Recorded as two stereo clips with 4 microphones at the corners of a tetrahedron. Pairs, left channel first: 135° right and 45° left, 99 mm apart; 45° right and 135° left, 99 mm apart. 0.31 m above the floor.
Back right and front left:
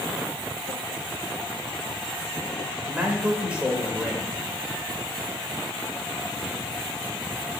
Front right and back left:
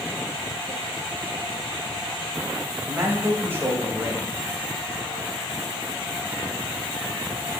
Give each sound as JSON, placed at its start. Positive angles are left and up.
{"t": 2.9, "sound": "a man speaking", "azimuth_deg": 110, "distance_m": 1.0}